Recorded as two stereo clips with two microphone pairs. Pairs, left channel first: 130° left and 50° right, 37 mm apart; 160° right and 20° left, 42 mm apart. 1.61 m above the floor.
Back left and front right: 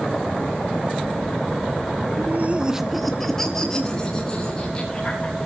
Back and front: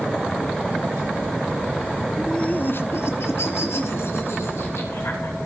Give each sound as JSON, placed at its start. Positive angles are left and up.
{"t": 2.2, "sound": "laughter", "azimuth_deg": -70, "distance_m": 0.6}